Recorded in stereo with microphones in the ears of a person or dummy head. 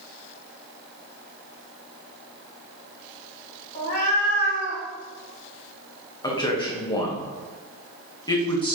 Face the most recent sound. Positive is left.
turn(degrees=20)  # may be behind; listen again after turning